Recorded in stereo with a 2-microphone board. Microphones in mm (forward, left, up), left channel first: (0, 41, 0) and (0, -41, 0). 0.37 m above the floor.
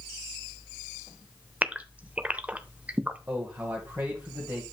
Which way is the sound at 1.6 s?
15° right (ahead or behind).